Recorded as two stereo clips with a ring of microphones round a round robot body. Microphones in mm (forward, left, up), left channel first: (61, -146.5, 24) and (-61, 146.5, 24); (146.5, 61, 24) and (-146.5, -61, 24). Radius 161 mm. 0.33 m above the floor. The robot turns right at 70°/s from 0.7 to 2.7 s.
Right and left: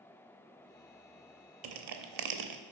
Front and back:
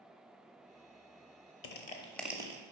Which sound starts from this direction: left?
Crushing, at 1.6 s.